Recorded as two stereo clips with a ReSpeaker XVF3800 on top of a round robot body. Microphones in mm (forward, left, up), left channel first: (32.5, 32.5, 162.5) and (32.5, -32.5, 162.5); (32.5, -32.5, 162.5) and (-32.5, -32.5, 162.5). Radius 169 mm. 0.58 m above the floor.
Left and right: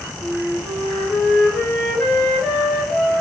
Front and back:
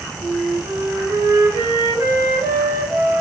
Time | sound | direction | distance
0.2 | a flute | 165° left | 1.6 m